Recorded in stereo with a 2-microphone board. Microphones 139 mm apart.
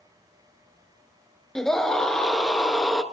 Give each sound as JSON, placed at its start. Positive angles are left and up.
{"t": 1.6, "sound": "a scream", "side_deg": 5, "distance_m": 1.3}